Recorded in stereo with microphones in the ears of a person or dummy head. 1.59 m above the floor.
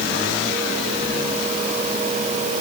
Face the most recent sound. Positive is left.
No sound to turn to.